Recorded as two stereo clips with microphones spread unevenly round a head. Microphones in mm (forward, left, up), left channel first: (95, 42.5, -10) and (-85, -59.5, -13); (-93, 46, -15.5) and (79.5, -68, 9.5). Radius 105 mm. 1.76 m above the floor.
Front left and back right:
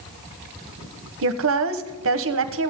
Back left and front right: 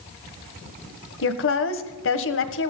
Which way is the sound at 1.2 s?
Straight behind.